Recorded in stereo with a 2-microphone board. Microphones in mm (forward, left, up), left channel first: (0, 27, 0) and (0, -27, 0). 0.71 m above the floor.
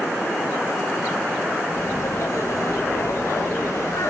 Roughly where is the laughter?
Left.